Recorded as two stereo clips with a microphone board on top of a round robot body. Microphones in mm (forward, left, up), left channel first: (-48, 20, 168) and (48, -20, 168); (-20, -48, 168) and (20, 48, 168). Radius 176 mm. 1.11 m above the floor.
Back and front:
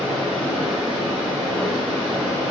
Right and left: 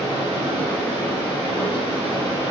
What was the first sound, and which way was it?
Running water, 75° left.